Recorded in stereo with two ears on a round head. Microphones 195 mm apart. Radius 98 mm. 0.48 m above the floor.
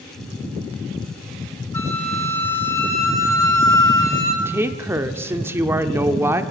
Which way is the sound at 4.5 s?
10° right (ahead or behind).